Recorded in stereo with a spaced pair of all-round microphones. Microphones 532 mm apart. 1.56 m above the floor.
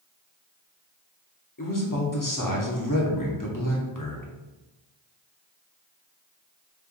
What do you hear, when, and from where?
1.6 s a man speaking: 35° left (ahead or behind), 0.9 m